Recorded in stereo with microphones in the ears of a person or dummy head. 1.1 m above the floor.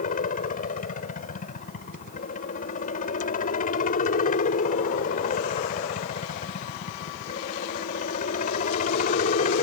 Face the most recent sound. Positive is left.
turn(degrees=50)  # may be behind; listen again after turning